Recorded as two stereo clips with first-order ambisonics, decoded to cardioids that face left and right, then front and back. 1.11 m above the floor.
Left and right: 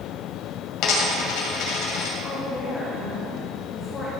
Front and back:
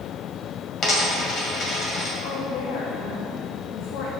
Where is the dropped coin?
60° left, 2 m.